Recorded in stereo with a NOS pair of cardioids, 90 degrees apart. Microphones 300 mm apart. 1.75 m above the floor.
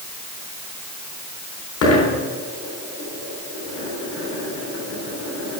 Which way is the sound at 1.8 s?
55° left.